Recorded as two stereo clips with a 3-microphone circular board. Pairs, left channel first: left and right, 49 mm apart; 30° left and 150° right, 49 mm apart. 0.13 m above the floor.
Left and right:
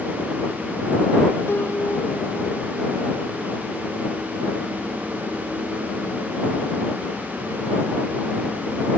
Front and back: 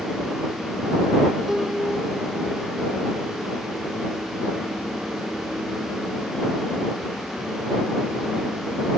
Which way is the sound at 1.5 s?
125° left.